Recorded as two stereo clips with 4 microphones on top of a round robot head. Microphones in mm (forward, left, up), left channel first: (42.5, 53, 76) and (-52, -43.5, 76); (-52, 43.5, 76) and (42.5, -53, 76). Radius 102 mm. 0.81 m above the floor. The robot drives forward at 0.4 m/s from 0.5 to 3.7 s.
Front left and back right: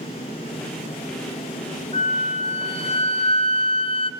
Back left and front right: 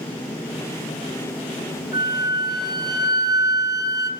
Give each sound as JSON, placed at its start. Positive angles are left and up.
{"t": 1.9, "sound": "a flute", "azimuth_deg": 10, "distance_m": 2.5}